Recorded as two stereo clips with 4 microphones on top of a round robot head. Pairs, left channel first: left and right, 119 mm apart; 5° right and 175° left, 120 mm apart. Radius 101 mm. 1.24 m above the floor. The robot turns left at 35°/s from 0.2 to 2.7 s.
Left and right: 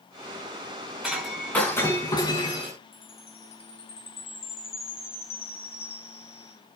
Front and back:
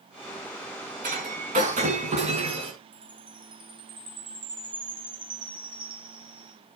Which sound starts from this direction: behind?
Breaking glass, at 1.0 s.